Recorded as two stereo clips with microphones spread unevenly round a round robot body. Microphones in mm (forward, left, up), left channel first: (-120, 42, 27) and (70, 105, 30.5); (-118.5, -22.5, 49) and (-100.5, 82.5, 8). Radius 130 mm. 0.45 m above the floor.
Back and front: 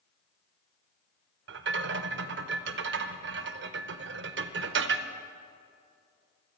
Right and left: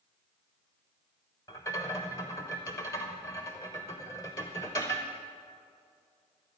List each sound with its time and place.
1.5 s a rattle: 20° right, 0.5 m